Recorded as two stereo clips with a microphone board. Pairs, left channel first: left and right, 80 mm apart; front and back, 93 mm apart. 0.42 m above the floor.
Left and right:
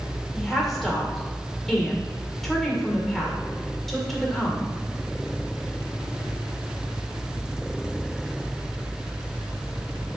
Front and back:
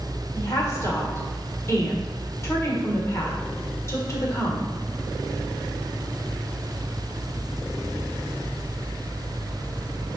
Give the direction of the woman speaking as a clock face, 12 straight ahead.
12 o'clock.